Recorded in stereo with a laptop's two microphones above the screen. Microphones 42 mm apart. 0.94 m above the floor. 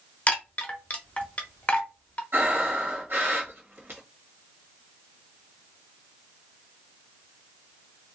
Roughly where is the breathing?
Right.